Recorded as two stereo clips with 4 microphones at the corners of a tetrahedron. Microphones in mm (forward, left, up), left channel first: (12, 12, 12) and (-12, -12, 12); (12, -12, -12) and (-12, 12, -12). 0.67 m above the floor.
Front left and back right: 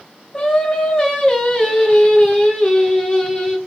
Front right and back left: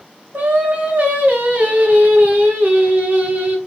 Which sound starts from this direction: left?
Singing, at 0.3 s.